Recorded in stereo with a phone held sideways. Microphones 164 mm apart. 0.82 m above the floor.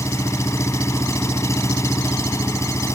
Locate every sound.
0.0 s an engine running: 20° left (ahead or behind)